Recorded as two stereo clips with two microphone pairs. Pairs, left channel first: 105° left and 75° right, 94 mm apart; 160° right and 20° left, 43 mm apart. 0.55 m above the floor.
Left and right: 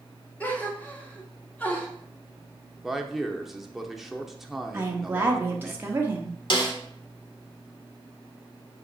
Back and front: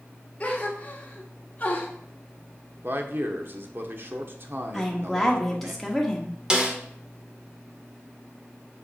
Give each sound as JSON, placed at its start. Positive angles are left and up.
{"t": 0.4, "sound": "a gasp", "azimuth_deg": 170, "distance_m": 1.4}
{"t": 2.8, "sound": "a man speaking", "azimuth_deg": 10, "distance_m": 1.0}
{"t": 4.7, "sound": "a woman speaking", "azimuth_deg": -75, "distance_m": 1.1}
{"t": 6.5, "sound": "a snare drum", "azimuth_deg": 90, "distance_m": 1.4}